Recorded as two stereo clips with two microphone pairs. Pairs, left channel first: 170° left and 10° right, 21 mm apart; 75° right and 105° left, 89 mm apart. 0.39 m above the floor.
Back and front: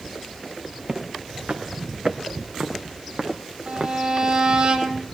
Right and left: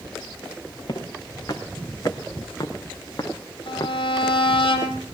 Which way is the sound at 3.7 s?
50° right.